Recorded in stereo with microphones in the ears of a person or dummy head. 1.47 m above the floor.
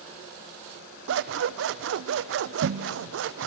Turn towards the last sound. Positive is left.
turn(degrees=-60)  # may be behind; listen again after turning